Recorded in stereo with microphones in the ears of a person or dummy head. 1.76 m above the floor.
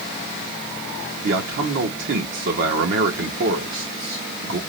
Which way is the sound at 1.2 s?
60° right (ahead or behind).